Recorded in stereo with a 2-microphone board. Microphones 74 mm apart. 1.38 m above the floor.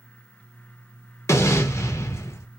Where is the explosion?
40° left (ahead or behind), 0.6 m.